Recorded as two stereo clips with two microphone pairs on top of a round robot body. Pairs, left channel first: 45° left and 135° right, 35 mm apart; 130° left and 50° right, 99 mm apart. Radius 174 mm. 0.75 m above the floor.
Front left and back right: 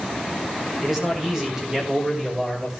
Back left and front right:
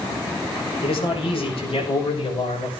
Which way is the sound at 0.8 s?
150° left.